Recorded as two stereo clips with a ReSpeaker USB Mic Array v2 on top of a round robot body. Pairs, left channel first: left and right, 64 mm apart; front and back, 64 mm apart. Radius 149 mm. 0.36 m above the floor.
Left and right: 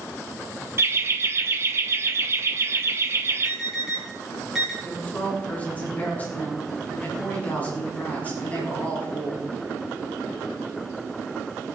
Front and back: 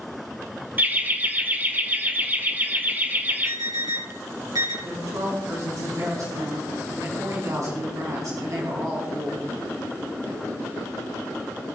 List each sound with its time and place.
0.8 s laughter: 125° right, 1.9 m
3.5 s an alarm: 175° right, 6.5 m
4.8 s a woman speaking: 155° left, 5.5 m